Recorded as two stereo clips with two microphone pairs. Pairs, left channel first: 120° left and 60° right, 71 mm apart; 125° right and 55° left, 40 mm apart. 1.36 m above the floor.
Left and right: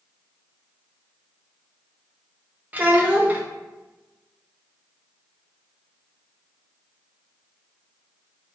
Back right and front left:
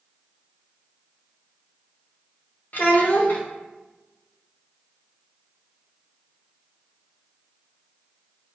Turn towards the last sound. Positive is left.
turn(degrees=-115)